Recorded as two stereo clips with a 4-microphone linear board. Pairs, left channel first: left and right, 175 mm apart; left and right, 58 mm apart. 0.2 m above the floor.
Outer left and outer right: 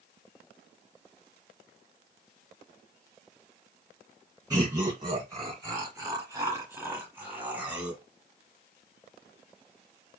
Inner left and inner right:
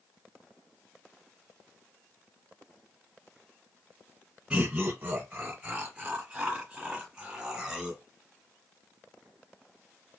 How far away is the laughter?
About 1.6 m.